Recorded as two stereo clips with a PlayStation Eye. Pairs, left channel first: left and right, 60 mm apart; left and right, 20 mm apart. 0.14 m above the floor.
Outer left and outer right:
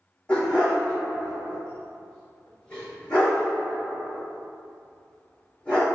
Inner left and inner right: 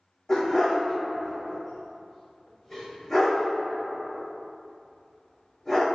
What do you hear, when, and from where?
0.3 s a dog barking: 15° left (ahead or behind), 2.0 m